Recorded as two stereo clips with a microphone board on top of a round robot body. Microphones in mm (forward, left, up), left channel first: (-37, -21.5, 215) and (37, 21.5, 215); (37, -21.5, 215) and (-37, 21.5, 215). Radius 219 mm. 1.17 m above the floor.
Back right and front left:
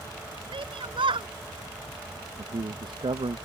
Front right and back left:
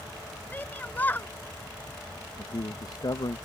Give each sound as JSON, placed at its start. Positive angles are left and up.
{"t": 0.5, "sound": "a shout", "azimuth_deg": 40}
{"t": 2.4, "sound": "a man speaking", "azimuth_deg": 10}